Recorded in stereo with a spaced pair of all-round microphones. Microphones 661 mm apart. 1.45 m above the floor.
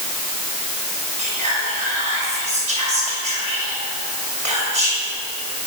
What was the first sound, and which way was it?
Whispering, 80° right.